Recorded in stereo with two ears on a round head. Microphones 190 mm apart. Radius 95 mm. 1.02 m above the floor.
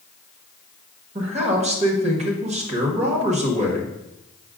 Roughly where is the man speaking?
Right.